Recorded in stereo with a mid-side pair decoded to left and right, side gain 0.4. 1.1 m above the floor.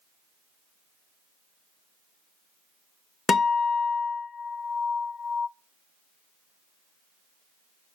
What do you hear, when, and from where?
3.3 s a guitar: 50° left, 0.9 m